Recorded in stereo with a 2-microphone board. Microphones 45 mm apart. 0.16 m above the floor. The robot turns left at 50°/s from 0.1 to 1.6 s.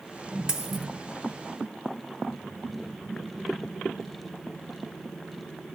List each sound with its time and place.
0.5 s a dropped coin: 15° right (ahead or behind), 0.8 m; by 0.9 s centre (ahead or behind), 0.8 m